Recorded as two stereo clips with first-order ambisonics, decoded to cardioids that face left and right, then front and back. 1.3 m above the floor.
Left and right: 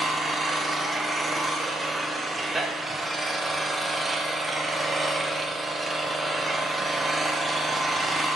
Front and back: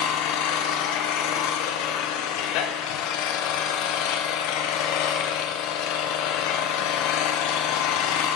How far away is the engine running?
About 0.8 m.